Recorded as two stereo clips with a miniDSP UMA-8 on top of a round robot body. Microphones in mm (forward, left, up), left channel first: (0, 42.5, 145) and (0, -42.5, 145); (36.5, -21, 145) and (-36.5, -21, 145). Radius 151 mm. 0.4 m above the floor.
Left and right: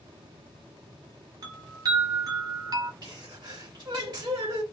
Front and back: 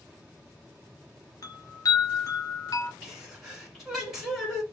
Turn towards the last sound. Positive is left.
turn(degrees=-95)